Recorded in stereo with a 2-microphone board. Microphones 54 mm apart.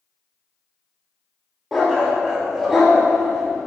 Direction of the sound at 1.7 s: 5° right (ahead or behind).